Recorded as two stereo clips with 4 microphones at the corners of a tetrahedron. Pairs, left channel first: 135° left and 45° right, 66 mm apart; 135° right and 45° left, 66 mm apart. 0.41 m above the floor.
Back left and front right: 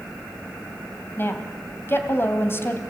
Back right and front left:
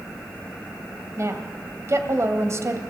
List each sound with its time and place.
1.2 s a woman speaking: 85° left, 1.9 m